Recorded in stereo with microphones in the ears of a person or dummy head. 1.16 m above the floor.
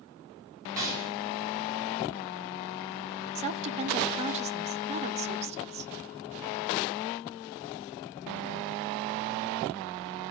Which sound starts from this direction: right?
A woman speaking, at 3.4 s.